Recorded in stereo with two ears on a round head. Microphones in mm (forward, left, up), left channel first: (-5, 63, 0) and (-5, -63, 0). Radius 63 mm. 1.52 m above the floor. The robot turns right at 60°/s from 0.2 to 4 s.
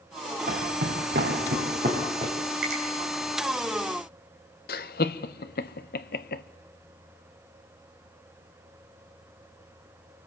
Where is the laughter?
70° left (ahead or behind), 1.1 m.